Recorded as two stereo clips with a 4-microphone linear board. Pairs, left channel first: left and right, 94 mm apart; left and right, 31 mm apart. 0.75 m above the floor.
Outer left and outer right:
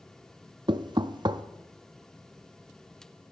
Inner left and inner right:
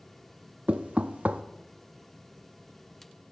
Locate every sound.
0.7 s knocking: 50° right (ahead or behind), 0.5 m